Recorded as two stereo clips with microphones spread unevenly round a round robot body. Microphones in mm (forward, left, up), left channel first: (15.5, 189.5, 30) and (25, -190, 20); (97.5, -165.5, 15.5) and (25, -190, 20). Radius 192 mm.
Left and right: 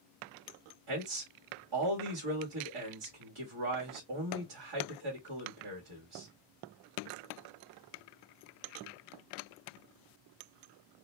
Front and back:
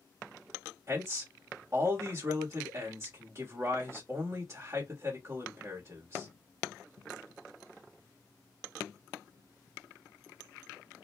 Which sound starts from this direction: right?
A man speaking, at 0.9 s.